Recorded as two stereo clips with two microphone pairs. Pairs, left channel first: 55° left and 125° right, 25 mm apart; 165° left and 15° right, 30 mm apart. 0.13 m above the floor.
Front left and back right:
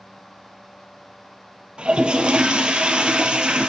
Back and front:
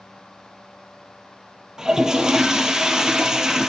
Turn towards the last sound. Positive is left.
turn(degrees=-85)